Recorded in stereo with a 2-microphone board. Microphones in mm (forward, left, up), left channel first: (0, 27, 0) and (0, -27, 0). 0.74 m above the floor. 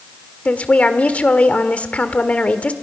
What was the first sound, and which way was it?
A woman speaking, 30° left (ahead or behind).